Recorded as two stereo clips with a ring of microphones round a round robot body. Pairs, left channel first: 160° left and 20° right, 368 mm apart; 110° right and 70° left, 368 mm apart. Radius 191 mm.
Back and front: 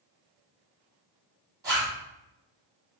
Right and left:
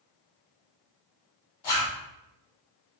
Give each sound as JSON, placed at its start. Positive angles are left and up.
{"t": 1.6, "sound": "a zipper", "azimuth_deg": -105, "distance_m": 1.5}